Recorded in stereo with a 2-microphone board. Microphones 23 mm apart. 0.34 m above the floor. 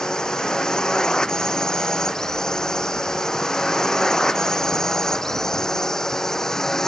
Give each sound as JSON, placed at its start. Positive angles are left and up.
{"t": 0.0, "sound": "a drone", "side_deg": 30}